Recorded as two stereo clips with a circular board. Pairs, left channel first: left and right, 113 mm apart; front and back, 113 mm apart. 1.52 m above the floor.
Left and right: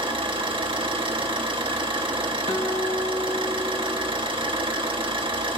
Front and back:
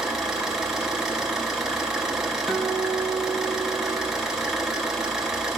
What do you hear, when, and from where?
0.0 s an engine running: 95° right, 1.0 m
2.5 s a guitar: 90° left, 1.2 m